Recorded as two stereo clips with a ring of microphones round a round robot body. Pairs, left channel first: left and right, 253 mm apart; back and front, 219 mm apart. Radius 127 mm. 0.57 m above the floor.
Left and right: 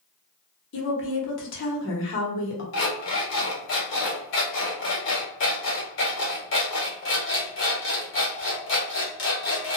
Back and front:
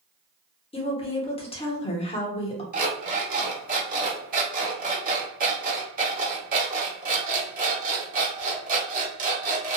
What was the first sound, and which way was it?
A woman speaking, 120° left.